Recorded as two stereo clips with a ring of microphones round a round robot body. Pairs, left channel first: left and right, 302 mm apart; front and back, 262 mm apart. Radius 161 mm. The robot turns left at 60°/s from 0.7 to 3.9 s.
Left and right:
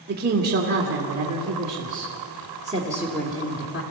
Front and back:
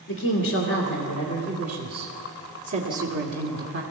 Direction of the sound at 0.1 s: 35° right.